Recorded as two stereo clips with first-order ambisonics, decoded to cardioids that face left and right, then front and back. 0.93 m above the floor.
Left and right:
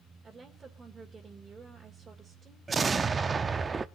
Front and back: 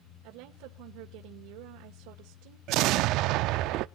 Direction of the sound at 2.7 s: 160° right.